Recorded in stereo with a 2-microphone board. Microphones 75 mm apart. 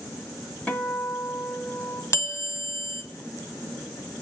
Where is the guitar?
15° left (ahead or behind), 1.1 m.